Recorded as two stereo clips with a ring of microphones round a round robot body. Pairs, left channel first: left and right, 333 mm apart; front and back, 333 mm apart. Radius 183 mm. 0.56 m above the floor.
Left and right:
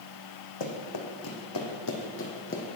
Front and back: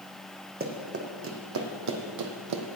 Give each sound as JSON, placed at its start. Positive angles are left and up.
{"t": 0.6, "sound": "running footsteps", "azimuth_deg": 120, "distance_m": 2.0}